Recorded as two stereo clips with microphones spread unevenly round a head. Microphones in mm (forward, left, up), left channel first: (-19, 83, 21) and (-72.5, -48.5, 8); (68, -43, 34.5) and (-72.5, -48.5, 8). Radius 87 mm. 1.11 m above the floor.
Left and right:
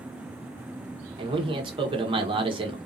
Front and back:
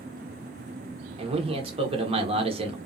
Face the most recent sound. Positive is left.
turn(degrees=-150)